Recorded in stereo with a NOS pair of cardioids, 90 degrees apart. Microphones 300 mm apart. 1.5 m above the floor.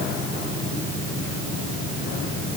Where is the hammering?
No hammering in this recording.